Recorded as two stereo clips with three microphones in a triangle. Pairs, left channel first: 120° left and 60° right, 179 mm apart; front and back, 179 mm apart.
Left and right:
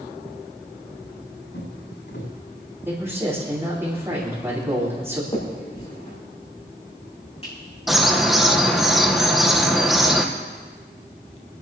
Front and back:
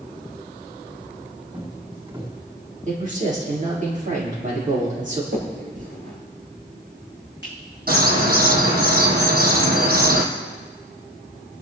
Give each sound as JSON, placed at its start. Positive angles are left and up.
{"t": 1.5, "sound": "footsteps", "azimuth_deg": 120, "distance_m": 6.5}
{"t": 2.9, "sound": "a man speaking", "azimuth_deg": -135, "distance_m": 8.0}
{"t": 5.3, "sound": "a finger snap", "azimuth_deg": 175, "distance_m": 7.0}
{"t": 7.9, "sound": "a bird", "azimuth_deg": -150, "distance_m": 2.0}